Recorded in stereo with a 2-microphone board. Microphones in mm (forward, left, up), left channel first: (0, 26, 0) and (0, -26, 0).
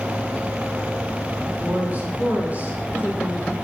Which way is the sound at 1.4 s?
30° right (ahead or behind).